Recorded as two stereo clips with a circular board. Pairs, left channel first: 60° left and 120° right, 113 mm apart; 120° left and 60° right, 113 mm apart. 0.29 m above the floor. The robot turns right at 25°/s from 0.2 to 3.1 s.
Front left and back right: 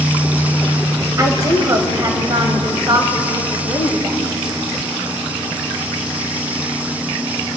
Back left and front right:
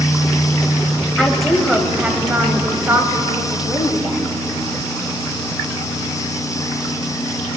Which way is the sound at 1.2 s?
155° right.